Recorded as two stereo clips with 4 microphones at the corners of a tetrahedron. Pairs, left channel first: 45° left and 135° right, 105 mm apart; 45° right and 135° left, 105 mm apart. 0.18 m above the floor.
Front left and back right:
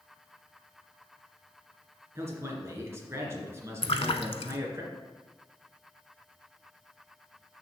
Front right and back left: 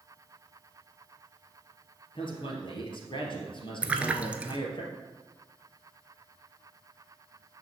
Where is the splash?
60° left, 0.7 m.